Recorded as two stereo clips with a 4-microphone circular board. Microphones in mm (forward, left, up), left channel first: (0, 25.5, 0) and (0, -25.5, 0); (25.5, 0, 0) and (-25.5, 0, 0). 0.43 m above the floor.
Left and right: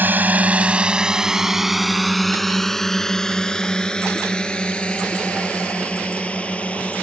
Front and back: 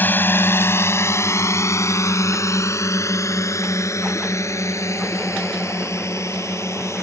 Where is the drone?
45° right; by 7.0 s 25° left.